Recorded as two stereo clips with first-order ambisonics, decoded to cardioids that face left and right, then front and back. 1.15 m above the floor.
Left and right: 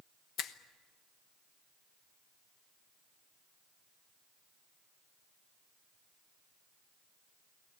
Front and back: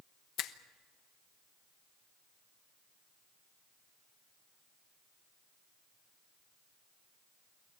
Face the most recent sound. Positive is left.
turn(degrees=45)